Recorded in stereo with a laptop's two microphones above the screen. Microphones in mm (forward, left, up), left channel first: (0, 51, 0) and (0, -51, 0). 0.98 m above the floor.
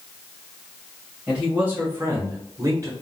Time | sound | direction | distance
1.3 | a man speaking | 10° right (ahead or behind) | 1.2 m